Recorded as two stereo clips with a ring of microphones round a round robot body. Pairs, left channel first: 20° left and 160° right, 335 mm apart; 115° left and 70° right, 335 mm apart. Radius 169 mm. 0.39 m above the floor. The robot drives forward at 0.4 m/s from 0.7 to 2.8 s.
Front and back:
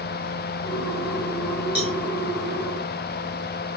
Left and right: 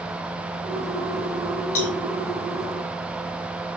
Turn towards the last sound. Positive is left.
turn(degrees=130)